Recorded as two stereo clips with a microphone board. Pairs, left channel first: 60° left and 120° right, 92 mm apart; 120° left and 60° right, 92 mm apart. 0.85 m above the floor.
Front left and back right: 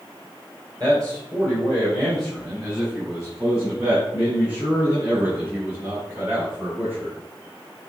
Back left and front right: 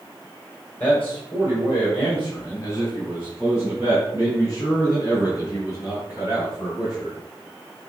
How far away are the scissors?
I don't hear scissors.